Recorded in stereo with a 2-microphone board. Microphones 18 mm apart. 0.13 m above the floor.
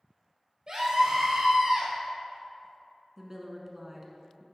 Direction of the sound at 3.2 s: 25° right (ahead or behind).